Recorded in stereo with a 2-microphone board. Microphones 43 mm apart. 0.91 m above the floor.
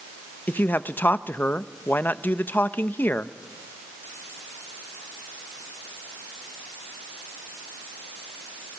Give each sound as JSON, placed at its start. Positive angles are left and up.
{"t": 0.5, "sound": "a man speaking", "side_deg": 45, "distance_m": 0.7}